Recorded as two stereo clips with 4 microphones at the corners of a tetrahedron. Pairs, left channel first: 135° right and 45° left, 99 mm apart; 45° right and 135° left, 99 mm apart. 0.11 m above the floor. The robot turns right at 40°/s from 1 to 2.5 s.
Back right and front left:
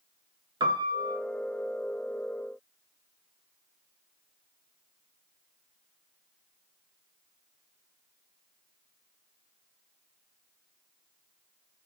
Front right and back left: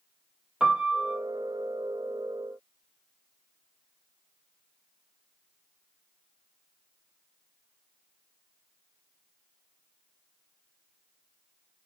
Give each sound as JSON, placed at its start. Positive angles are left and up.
{"t": 0.6, "sound": "a piano", "azimuth_deg": 60, "distance_m": 0.5}